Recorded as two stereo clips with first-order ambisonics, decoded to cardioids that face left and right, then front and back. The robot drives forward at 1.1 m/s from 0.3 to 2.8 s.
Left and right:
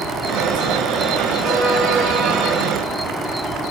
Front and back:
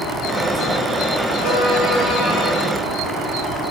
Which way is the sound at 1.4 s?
45° right.